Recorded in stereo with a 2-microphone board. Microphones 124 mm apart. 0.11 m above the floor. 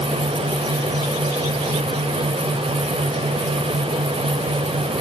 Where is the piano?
I don't hear a piano.